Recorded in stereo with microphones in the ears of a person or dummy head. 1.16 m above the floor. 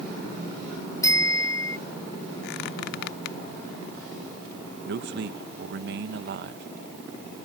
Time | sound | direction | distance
1.0 | a bicycle bell | 20° left (ahead or behind) | ?
2.4 | a squeak | 60° left (ahead or behind) | ?
4.8 | a man speaking | 50° right (ahead or behind) | ?